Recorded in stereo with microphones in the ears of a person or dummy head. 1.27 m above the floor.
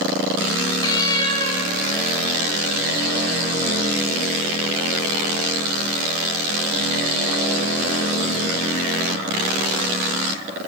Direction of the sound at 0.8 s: 20° left (ahead or behind).